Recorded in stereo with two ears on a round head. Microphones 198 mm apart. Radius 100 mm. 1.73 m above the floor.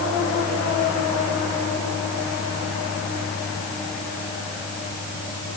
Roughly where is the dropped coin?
No dropped coin in this recording.